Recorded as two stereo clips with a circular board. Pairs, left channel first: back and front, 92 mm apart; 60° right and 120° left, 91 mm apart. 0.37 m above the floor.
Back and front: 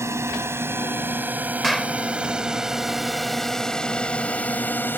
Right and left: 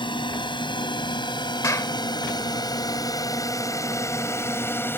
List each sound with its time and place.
0.0 s a drone: 55° right; by 5.0 s 120° right
1.6 s a clap: 90° right